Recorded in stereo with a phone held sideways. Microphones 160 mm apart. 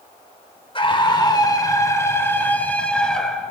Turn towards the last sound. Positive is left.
turn(degrees=0)  # may be behind; listen again after turning